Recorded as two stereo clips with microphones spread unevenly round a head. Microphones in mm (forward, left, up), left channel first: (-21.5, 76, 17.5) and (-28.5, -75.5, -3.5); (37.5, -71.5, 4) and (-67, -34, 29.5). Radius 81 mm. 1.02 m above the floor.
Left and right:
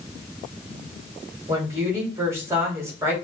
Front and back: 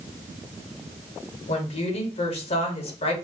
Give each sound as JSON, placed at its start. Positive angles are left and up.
{"t": 1.5, "sound": "a woman speaking", "azimuth_deg": -20, "distance_m": 2.0}